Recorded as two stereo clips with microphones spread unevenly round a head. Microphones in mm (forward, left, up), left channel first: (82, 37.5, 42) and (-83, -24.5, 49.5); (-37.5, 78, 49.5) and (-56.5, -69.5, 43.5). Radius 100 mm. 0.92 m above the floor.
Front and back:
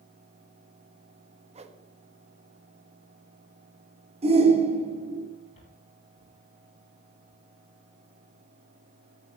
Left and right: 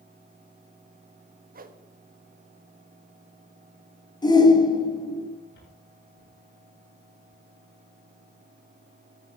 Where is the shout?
145° left, 3.5 m.